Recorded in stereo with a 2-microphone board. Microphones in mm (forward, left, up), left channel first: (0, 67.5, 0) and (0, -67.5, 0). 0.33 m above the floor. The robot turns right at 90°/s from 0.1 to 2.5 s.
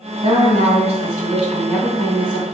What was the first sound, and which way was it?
A woman speaking, 120° right.